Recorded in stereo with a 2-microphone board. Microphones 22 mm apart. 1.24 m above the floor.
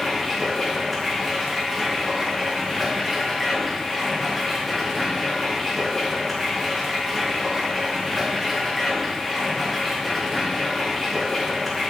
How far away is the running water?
About 1.9 m.